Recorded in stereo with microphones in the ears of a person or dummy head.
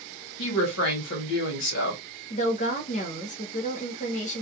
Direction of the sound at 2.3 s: 35° left (ahead or behind).